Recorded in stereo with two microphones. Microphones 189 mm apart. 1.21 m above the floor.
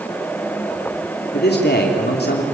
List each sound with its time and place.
1.3 s a man speaking: 60° left (ahead or behind), 3 m